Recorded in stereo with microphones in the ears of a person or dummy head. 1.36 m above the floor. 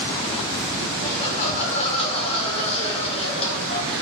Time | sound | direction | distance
1.0 | laughter | 35° left (ahead or behind) | 5 m